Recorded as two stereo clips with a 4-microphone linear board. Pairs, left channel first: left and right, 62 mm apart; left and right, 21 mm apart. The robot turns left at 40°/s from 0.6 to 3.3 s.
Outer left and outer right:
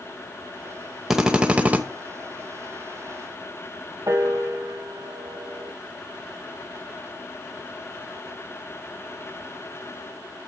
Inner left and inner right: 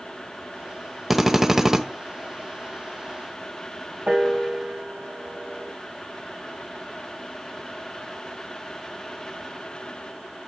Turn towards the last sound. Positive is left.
turn(degrees=-60)  # may be behind; listen again after turning